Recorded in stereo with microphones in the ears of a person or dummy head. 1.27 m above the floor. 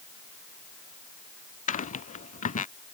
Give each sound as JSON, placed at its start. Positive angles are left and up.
{"t": 1.7, "sound": "footsteps", "side_deg": 35}